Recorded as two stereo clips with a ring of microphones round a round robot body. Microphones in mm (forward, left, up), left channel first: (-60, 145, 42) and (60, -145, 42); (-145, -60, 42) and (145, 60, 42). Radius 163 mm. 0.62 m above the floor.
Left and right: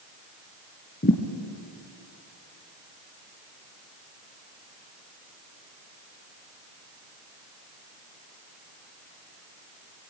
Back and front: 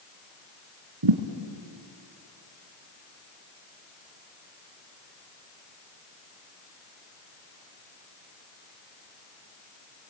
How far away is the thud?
About 1.7 m.